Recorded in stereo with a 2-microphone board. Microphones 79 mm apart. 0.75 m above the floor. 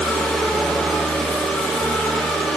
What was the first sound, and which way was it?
Only background noise.